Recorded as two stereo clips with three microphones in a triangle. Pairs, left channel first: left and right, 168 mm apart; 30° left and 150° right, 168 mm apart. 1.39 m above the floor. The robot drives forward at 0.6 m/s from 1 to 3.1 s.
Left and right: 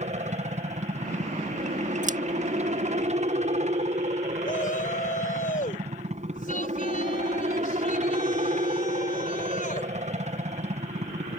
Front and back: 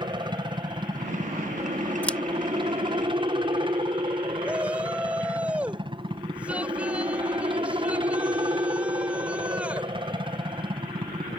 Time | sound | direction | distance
0.0 | a helicopter | 100° right | ?
2.0 | scissors | 50° right | ?
4.4 | a shout | 125° left | ?